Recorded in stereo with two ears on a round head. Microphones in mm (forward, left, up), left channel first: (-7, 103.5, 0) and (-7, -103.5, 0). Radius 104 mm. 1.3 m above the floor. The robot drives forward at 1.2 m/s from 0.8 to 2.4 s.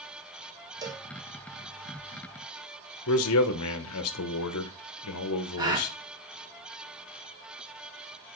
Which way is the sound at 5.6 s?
20° right (ahead or behind).